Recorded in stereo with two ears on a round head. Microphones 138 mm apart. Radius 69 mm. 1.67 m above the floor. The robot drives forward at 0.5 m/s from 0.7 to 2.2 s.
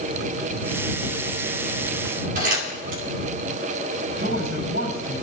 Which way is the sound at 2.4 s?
65° right (ahead or behind).